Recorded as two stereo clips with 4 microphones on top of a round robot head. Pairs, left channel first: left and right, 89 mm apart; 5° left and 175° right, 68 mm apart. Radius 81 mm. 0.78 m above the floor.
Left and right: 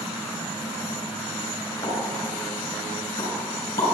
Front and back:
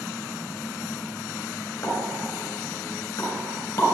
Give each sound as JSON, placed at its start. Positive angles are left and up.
{"t": 1.8, "sound": "a pop", "azimuth_deg": 60, "distance_m": 3.5}